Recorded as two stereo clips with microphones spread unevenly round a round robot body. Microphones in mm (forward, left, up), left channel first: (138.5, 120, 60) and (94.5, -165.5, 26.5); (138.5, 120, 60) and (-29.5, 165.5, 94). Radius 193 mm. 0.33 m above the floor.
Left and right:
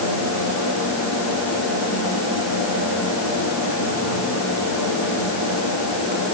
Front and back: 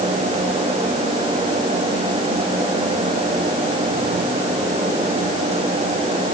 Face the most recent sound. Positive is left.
No sound to turn to.